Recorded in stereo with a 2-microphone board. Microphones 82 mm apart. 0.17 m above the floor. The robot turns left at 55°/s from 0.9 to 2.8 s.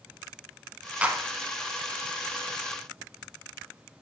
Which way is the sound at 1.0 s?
15° right (ahead or behind).